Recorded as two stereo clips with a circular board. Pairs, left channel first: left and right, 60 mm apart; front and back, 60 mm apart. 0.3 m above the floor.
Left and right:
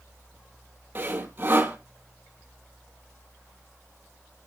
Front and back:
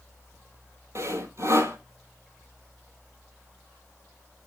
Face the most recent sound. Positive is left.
turn(degrees=-145)